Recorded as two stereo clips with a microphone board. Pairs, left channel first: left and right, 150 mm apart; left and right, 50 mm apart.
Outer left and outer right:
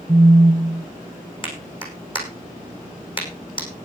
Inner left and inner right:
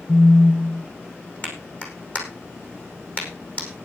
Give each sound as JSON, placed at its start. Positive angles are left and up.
{"t": 0.1, "sound": "a phone buzzing", "side_deg": -25, "distance_m": 0.9}
{"t": 1.4, "sound": "a clap", "side_deg": 35, "distance_m": 5.5}